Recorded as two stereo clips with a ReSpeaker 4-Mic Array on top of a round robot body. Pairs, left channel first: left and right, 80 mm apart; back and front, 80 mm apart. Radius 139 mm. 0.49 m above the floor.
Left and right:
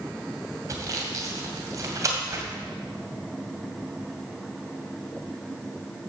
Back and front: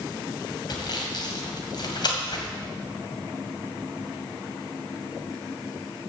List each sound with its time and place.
0.7 s sawing: 140° right, 2.5 m